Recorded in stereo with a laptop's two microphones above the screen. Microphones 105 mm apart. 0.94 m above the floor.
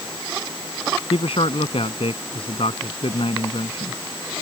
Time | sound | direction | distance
1.1 | a man speaking | 70° left (ahead or behind) | ?